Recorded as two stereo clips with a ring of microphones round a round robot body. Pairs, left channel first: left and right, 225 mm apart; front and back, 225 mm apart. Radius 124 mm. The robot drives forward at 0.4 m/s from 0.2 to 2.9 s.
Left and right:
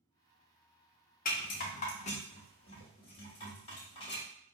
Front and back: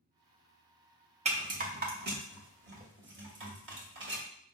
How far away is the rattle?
About 0.9 m.